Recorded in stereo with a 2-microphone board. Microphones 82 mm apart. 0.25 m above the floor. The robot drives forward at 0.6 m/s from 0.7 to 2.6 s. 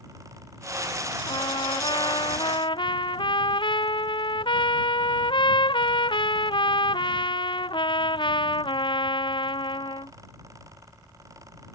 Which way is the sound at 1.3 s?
80° left.